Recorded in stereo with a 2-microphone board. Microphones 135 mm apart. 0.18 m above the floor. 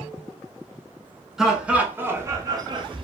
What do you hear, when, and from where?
1.4 s laughter: 5° right (ahead or behind), 1.6 m; by 3.0 s 40° right (ahead or behind), 1.4 m